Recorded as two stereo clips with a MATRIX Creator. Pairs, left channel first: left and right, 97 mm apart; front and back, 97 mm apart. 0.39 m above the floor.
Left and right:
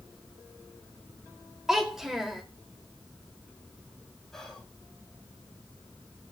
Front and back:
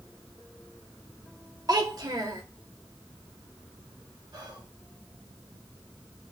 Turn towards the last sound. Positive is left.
turn(degrees=175)